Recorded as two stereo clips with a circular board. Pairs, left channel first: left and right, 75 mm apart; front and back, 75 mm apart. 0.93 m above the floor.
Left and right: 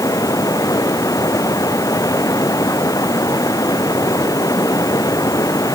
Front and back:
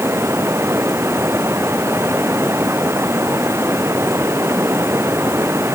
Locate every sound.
0.0 s running water: 125° left